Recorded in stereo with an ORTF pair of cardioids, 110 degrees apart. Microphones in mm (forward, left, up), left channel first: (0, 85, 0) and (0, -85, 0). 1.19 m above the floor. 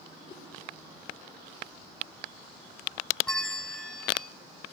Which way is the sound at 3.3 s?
5° left.